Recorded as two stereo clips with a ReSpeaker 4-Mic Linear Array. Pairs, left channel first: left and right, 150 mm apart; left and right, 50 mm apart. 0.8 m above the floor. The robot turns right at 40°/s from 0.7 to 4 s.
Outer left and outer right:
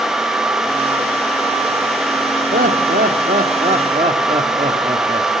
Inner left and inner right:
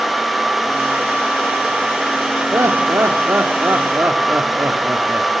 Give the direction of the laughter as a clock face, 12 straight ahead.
3 o'clock.